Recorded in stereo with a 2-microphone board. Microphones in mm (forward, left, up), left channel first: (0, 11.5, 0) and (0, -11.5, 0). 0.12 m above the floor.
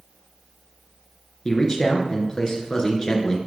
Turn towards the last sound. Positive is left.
turn(degrees=35)  # may be behind; listen again after turning